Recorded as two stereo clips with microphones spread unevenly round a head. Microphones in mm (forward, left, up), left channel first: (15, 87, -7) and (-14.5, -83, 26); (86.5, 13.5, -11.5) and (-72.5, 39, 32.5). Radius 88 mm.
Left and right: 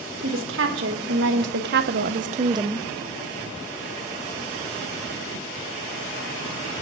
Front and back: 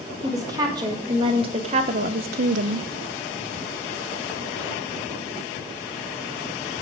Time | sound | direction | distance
0.2 | a woman speaking | 115° right | 2 m